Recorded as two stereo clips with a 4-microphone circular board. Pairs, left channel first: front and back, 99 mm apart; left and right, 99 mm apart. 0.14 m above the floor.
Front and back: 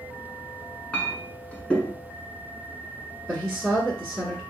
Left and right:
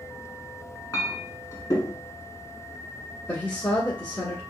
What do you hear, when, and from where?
0.9 s a clink: 70° left, 0.8 m
3.3 s a woman speaking: 75° left, 1.3 m